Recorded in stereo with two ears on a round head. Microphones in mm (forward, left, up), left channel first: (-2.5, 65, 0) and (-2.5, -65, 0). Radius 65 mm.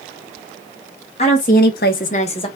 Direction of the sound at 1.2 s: 45° left (ahead or behind).